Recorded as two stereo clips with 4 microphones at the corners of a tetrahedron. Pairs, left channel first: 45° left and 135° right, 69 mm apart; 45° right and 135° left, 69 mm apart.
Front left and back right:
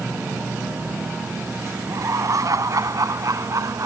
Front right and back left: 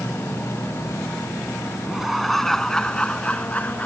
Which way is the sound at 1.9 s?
140° right.